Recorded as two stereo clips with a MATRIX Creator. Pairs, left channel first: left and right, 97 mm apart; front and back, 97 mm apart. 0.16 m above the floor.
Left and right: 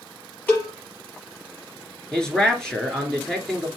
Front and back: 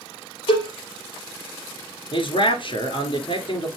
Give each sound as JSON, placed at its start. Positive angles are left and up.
{"t": 0.5, "sound": "a cowbell", "azimuth_deg": 20, "distance_m": 4.5}
{"t": 2.1, "sound": "a man speaking", "azimuth_deg": 5, "distance_m": 2.0}